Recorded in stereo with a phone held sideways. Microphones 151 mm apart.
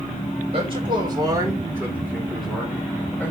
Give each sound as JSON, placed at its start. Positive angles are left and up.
{"t": 0.5, "sound": "a man speaking", "side_deg": -40, "distance_m": 3.0}